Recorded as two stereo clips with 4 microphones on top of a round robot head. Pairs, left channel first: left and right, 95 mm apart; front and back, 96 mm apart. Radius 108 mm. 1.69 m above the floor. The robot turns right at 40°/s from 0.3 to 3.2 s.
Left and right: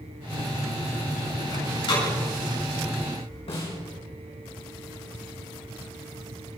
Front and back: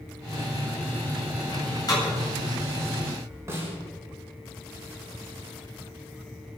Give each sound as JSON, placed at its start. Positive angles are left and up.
{"t": 1.5, "sound": "a door slam", "azimuth_deg": 35, "distance_m": 9.0}
{"t": 3.5, "sound": "a snare drum", "azimuth_deg": 120, "distance_m": 6.5}